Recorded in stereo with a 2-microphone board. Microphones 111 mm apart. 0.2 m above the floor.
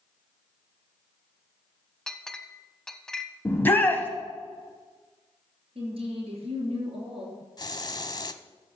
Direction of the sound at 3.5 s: 20° left (ahead or behind).